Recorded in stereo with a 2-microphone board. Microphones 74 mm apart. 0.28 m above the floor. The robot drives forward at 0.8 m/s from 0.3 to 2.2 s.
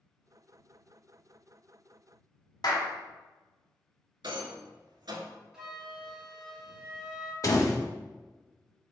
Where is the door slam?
45° left (ahead or behind), 0.8 m.